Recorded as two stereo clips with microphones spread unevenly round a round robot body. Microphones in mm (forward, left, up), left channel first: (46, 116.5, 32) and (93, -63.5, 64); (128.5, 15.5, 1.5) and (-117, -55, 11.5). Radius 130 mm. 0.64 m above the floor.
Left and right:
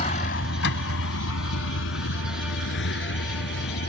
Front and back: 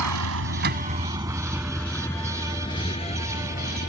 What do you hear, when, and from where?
0.0 s a vehicle: 170° left; by 3.9 s 80° left